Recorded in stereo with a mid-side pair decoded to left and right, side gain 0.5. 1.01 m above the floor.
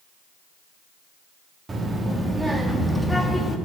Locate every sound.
1.7 s a child speaking: 30° right, 1.6 m; by 3.6 s 10° left, 1.4 m